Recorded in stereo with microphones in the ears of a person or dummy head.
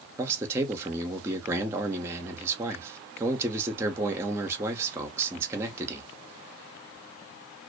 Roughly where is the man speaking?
Centre.